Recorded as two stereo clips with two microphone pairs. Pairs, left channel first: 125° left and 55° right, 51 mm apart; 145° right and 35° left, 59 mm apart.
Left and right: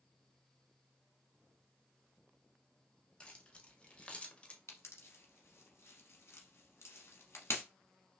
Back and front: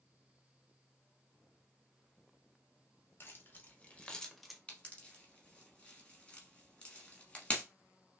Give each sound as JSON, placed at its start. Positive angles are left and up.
{"t": 3.2, "sound": "keys jangling", "azimuth_deg": -175, "distance_m": 1.0}
{"t": 4.7, "sound": "a pop", "azimuth_deg": 145, "distance_m": 1.1}